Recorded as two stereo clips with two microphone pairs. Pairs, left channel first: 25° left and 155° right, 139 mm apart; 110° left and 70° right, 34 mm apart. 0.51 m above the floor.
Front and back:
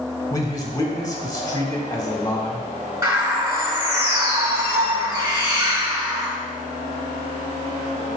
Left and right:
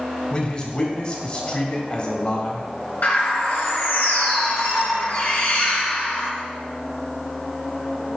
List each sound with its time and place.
0.3 s a man speaking: 75° left, 1.4 m
3.0 s a bird: 140° left, 3 m